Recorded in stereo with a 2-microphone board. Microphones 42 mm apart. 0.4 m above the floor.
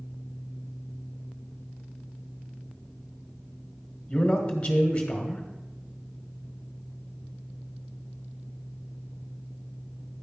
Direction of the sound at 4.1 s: 20° left (ahead or behind).